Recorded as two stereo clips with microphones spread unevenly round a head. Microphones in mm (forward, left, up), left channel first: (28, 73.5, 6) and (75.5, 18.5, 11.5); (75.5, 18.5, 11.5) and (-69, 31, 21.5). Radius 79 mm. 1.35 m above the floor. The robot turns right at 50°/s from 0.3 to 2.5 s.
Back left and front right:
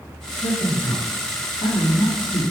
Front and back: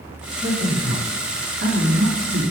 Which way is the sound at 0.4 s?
85° left.